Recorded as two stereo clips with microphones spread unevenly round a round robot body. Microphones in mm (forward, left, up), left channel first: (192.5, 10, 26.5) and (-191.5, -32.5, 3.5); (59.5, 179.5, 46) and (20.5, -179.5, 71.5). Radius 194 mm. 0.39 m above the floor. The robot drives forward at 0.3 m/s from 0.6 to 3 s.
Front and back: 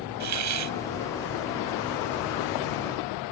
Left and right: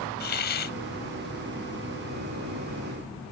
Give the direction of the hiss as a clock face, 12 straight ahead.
7 o'clock.